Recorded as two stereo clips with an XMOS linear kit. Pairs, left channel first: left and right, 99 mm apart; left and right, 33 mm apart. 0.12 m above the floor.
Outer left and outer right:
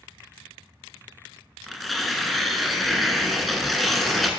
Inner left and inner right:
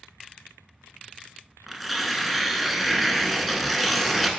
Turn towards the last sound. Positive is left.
turn(degrees=0)  # may be behind; listen again after turning